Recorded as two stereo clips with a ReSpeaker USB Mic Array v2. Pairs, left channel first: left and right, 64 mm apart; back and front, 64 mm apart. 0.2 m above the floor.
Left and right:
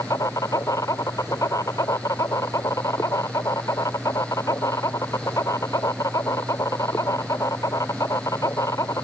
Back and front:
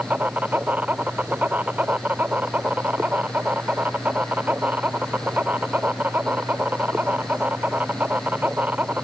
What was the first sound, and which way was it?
An insect, 65° left.